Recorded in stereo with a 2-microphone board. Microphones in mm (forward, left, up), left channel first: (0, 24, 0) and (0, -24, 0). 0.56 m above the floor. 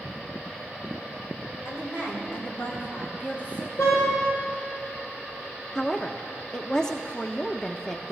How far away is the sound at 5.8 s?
About 0.6 m.